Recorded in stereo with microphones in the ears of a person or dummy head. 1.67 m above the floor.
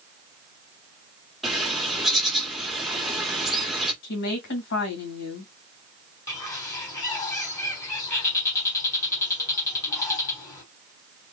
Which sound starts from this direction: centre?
A bird, at 1.4 s.